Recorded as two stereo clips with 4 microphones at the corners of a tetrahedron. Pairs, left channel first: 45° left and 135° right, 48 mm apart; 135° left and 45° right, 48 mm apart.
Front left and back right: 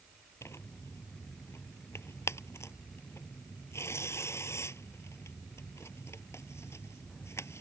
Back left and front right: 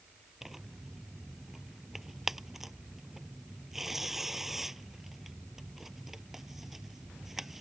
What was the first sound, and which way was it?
Tearing paper, 35° left.